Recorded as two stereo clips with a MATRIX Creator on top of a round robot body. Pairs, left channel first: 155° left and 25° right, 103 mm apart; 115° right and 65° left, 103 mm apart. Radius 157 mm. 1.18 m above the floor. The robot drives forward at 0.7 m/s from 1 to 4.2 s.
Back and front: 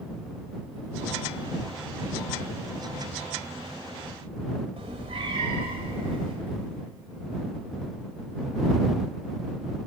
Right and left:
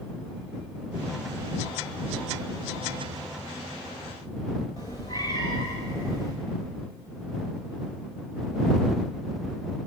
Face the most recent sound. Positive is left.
turn(degrees=-60)